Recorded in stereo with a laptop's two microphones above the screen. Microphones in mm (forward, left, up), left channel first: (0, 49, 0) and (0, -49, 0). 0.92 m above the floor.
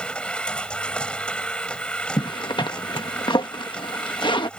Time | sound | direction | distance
0.0 | a machine running | 10° left (ahead or behind) | ?
2.2 | a zipper | 55° left (ahead or behind) | ?